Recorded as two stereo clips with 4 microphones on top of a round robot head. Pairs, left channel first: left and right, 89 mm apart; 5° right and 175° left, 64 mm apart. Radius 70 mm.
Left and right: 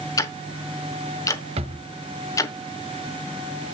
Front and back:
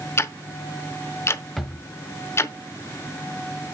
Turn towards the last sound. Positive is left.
turn(degrees=-95)